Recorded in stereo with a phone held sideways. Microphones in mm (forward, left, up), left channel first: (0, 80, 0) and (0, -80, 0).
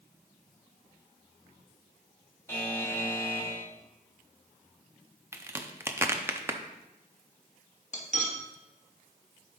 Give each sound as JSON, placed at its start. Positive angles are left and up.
{"t": 2.5, "sound": "a buzzer", "side_deg": 15, "distance_m": 1.4}
{"t": 5.3, "sound": "a crack", "side_deg": -15, "distance_m": 0.7}
{"t": 7.9, "sound": "cutlery clinking", "side_deg": 50, "distance_m": 1.2}